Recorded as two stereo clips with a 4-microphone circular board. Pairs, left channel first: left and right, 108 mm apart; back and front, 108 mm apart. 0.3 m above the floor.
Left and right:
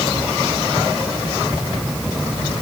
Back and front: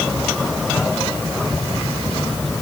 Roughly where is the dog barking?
No dog barking in this recording.